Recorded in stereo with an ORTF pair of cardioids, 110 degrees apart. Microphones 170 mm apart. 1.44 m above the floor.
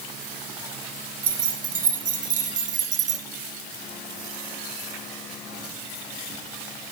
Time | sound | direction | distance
1.2 | keys jangling | 50° right | 2.5 m